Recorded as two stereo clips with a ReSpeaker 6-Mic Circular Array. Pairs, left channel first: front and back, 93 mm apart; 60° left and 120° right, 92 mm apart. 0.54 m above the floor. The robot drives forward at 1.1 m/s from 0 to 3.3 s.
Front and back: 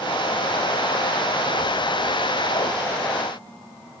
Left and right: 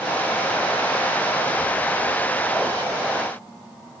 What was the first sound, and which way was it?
Only background noise.